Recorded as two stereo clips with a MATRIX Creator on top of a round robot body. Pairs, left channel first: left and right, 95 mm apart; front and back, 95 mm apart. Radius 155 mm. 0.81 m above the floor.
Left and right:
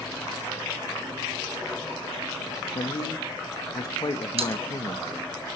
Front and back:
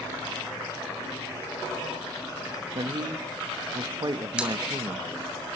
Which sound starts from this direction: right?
A pop, at 4.4 s.